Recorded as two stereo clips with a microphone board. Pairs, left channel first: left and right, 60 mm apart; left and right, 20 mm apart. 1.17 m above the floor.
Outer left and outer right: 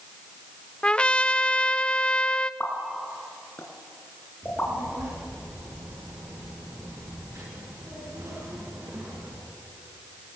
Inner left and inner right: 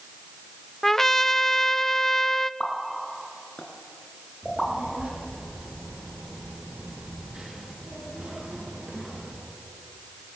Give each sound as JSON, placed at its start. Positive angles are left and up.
{"t": 0.8, "sound": "a trumpet", "side_deg": 20, "distance_m": 0.6}
{"t": 2.6, "sound": "a pop", "side_deg": 35, "distance_m": 3.5}
{"t": 4.4, "sound": "a child speaking", "side_deg": -50, "distance_m": 8.5}